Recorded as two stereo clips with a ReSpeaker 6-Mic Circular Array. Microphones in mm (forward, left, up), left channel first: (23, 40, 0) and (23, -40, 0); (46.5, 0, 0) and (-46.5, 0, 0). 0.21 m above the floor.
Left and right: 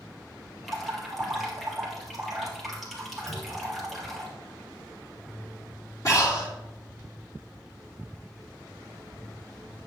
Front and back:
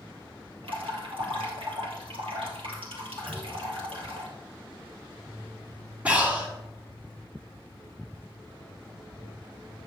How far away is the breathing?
About 2 m.